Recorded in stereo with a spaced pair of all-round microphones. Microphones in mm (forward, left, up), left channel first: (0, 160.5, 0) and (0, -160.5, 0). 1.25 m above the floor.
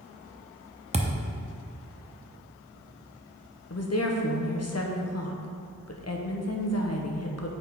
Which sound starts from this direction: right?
A thud, at 0.9 s.